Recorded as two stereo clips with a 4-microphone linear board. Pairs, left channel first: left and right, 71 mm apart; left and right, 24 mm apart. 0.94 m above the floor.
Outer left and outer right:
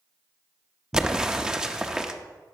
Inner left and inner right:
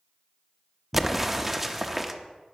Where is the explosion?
10° right (ahead or behind), 0.7 m.